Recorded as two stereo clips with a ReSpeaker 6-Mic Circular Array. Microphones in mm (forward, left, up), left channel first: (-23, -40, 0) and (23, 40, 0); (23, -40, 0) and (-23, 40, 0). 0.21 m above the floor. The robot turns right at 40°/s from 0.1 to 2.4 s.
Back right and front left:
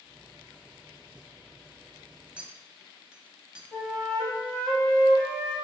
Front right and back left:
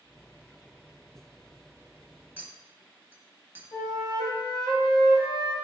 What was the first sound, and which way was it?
A clink, 110° left.